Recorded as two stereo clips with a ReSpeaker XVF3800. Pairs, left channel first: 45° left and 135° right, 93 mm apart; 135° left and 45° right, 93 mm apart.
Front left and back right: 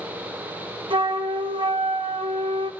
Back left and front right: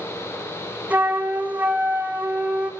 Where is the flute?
115° right, 1.4 m.